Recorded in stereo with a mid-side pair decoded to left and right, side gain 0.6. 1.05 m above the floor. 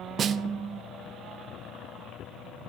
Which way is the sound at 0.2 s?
45° right.